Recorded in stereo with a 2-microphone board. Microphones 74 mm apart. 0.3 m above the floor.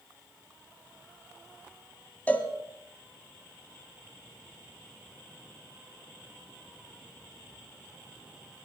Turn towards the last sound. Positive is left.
turn(degrees=20)  # may be behind; listen again after turning